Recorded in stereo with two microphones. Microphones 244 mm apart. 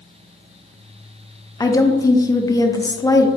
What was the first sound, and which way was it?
A woman speaking, 15° left (ahead or behind).